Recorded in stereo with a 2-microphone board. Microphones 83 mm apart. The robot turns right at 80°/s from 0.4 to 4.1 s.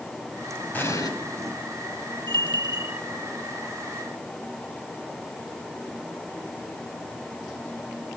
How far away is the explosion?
About 4.5 m.